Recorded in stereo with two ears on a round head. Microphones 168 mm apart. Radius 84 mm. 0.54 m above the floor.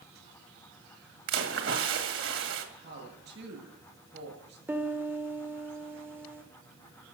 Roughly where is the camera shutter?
I don't hear a camera shutter.